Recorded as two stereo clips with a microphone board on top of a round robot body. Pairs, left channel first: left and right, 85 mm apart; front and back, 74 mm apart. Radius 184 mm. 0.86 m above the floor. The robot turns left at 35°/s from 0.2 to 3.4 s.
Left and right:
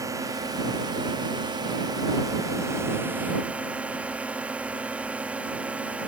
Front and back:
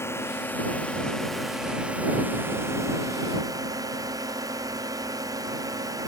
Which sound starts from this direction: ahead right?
A drone, at 0.0 s.